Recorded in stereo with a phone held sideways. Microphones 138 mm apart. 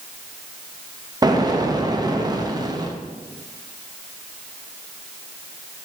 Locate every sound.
1.2 s an explosion: 25° right (ahead or behind), 0.8 m